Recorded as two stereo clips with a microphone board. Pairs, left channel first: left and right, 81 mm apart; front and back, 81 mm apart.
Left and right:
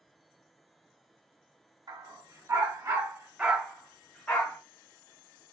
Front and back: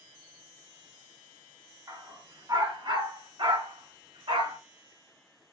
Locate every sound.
1.9 s a dog barking: 130° right, 1.3 m; by 4.6 s 160° left, 1.1 m